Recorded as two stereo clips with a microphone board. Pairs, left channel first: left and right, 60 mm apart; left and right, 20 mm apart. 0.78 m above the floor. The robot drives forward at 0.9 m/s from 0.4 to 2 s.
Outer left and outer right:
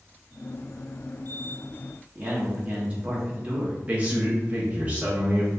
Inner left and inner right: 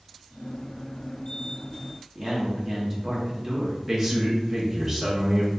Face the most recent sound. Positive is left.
turn(degrees=-25)  # may be behind; listen again after turning